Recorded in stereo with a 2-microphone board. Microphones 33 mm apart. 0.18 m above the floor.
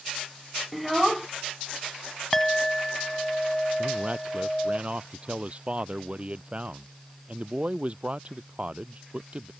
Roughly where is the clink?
Centre.